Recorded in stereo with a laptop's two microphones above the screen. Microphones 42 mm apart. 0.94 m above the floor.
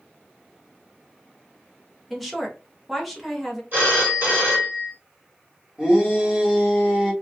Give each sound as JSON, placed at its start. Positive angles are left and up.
{"t": 2.1, "sound": "a woman speaking", "side_deg": 5, "distance_m": 0.7}
{"t": 3.7, "sound": "a phone ringing", "side_deg": -50, "distance_m": 0.9}
{"t": 5.8, "sound": "a shout", "side_deg": -15, "distance_m": 1.4}